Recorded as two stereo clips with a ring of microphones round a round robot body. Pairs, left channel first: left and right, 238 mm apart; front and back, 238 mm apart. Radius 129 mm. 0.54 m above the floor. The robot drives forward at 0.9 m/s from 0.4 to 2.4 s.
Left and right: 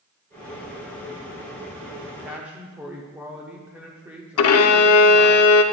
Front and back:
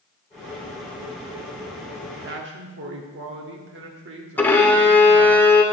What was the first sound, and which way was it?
A man speaking, 165° right.